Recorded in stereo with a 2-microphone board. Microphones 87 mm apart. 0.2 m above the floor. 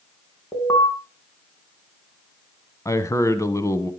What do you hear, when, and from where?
0.5 s an alarm: 35° left (ahead or behind), 3 m
2.9 s a man speaking: 35° left (ahead or behind), 1.2 m